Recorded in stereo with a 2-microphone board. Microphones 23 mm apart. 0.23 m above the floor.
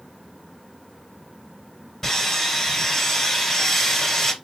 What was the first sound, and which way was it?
Sawing, 20° left (ahead or behind).